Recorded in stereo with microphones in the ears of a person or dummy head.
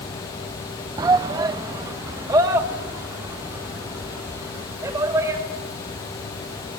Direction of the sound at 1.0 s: 30° right (ahead or behind).